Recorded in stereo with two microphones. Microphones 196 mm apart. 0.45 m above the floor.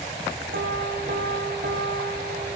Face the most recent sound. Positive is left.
turn(degrees=-65)  # may be behind; listen again after turning